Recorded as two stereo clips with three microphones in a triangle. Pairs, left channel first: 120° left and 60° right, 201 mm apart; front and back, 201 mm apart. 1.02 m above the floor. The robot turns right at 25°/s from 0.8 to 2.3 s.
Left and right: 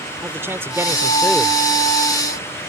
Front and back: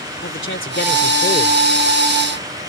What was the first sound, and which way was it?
A man speaking, 20° left.